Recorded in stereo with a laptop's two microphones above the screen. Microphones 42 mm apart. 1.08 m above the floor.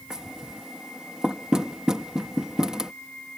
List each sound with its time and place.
0.1 s knocking: 15° right (ahead or behind)